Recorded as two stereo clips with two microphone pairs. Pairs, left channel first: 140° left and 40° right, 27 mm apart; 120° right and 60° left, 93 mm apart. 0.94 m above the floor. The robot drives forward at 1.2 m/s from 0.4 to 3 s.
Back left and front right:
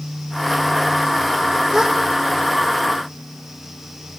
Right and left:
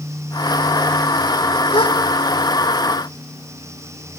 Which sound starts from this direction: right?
A gasp, at 1.7 s.